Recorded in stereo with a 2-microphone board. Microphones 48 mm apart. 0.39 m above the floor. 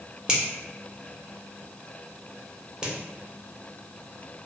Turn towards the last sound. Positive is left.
turn(degrees=-20)  # may be behind; listen again after turning